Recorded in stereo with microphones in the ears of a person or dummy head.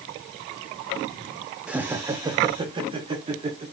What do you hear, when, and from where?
1.7 s laughter: 5° right (ahead or behind), 0.8 m; by 3.6 s 35° right (ahead or behind), 2 m